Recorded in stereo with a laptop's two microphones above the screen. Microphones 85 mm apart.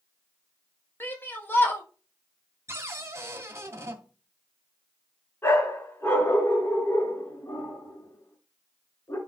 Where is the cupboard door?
30° right (ahead or behind), 1.9 m.